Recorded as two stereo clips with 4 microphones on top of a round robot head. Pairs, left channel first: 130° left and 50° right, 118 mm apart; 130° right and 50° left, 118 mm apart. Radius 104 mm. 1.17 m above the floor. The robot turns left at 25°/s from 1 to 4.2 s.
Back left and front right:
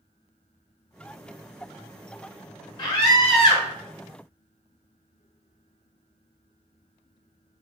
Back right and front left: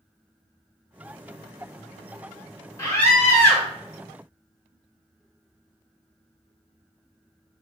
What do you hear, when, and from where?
2.8 s a scream: 165° left, 1.2 m; by 3.7 s 145° left, 1.2 m